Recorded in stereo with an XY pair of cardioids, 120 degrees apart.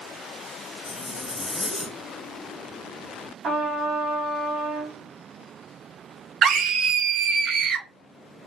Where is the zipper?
5° left, 2.5 m.